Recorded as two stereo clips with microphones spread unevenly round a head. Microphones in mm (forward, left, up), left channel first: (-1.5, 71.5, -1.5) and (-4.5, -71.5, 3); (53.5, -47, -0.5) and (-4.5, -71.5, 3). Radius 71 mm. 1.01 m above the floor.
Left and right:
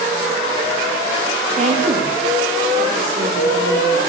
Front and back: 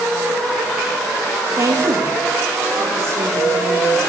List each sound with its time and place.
1.6 s a woman speaking: 130° right, 1.8 m; by 4.0 s 120° right, 4.5 m